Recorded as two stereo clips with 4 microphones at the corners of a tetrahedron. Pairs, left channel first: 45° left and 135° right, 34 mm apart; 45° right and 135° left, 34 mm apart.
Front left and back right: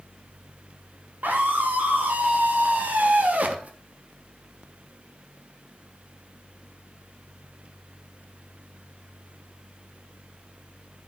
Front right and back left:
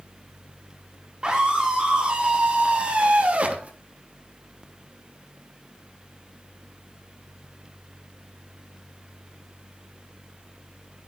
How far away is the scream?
About 4.5 m.